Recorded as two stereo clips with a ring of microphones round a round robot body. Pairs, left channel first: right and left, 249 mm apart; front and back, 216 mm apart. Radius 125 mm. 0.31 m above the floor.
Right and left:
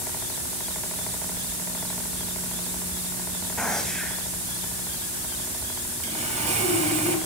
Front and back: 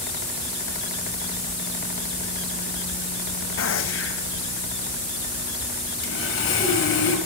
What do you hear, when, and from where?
3.6 s a gunshot: 5° right, 1.5 m
6.0 s sawing: 25° left, 6 m